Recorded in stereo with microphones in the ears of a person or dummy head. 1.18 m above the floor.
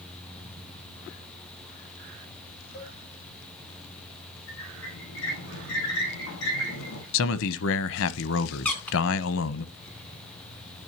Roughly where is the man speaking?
Left.